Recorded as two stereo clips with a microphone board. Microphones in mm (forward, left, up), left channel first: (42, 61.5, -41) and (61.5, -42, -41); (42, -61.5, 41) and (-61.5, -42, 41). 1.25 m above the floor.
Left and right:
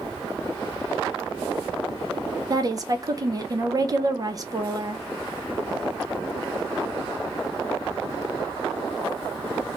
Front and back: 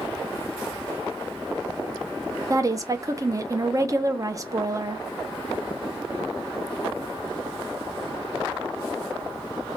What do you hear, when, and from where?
2.5 s a woman speaking: 130° right, 0.5 m